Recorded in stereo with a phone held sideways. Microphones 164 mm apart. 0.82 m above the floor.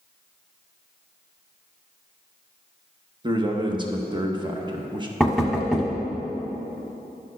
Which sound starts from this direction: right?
A man speaking, at 3.2 s.